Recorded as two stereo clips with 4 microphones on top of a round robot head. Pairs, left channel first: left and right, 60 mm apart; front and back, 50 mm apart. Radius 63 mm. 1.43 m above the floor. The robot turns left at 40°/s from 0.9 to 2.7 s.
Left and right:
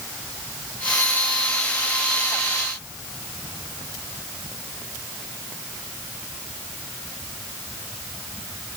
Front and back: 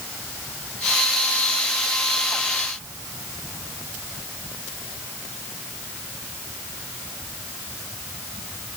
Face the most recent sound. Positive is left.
No sound to turn to.